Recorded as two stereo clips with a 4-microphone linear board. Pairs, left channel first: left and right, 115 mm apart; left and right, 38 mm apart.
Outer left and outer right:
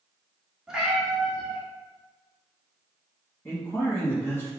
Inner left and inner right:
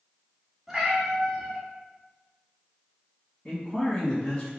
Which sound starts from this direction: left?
A man speaking, at 3.5 s.